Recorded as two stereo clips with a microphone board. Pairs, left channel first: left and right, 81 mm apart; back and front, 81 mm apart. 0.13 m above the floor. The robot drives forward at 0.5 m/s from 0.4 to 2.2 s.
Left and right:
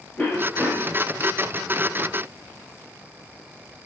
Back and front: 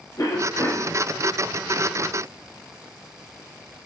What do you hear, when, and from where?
0.2 s a cough: 160° left, 2.5 m